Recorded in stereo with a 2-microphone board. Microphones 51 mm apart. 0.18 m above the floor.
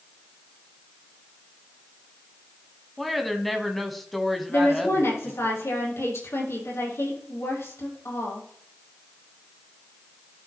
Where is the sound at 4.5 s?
75° left (ahead or behind), 5 m.